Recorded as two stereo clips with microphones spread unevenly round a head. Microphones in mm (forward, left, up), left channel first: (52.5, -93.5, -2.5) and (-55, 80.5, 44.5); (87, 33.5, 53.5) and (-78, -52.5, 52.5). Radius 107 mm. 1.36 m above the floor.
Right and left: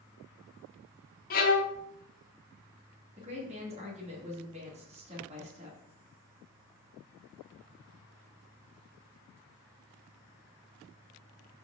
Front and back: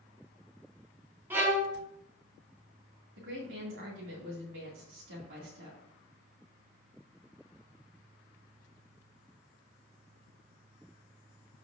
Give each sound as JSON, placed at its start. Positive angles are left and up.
{"t": 1.3, "sound": "a violin", "azimuth_deg": -85, "distance_m": 0.9}
{"t": 3.2, "sound": "a woman speaking", "azimuth_deg": -175, "distance_m": 2.5}